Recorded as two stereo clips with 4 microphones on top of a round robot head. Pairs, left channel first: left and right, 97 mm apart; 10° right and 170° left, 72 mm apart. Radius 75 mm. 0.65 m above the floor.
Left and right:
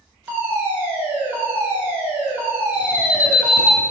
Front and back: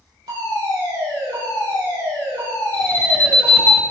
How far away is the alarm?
About 2.5 m.